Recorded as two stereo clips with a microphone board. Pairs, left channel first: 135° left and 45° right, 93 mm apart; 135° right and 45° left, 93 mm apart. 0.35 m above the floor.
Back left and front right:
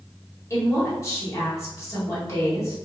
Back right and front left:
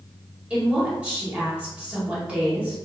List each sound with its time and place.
0.5 s a woman speaking: 110° left, 1.6 m